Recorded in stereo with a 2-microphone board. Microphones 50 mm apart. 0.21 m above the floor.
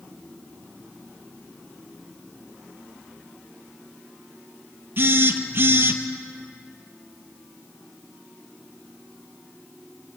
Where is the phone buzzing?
45° right (ahead or behind), 2.0 m.